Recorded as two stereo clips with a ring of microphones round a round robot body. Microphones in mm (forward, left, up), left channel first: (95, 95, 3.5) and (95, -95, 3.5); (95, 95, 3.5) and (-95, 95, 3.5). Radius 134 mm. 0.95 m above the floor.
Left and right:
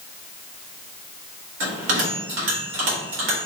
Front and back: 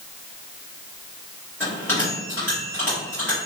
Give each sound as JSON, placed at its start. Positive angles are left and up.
{"t": 1.6, "sound": "a bell", "azimuth_deg": -85, "distance_m": 1.8}